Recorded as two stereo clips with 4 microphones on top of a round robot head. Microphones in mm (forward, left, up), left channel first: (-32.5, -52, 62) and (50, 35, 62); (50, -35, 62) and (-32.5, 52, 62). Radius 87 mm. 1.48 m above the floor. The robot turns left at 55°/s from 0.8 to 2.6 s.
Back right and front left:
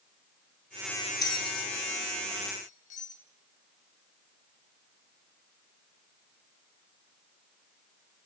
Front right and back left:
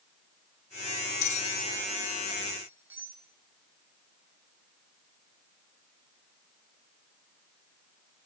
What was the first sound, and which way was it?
A bell, 75° right.